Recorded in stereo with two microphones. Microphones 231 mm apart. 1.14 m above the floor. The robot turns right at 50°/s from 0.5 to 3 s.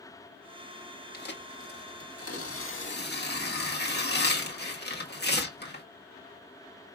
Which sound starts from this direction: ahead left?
Tearing paper, at 1.1 s.